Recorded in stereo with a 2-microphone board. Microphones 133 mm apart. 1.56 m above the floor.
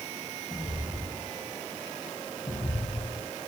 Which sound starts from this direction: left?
Footsteps, at 0.5 s.